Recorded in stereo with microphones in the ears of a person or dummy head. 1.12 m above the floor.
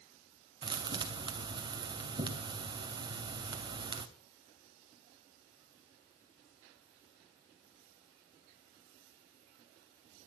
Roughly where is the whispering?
I don't hear whispering.